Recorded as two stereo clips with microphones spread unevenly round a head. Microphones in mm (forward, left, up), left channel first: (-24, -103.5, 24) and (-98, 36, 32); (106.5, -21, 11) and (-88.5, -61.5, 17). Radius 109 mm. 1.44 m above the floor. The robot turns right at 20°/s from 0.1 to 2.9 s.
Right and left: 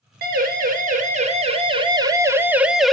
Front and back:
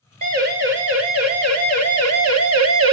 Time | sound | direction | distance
0.2 | a siren | 135° left | 4.5 m